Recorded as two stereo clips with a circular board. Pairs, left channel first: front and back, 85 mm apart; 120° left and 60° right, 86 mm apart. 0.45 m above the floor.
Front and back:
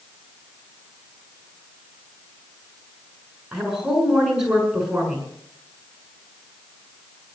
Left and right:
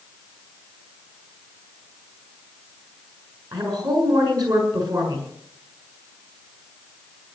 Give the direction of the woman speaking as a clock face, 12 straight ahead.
3 o'clock.